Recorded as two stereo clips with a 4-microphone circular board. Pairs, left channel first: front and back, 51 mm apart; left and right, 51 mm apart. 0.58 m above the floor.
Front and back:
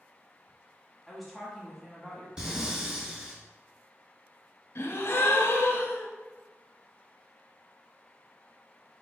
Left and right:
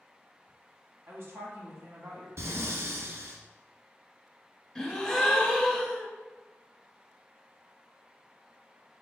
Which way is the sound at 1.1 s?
95° right.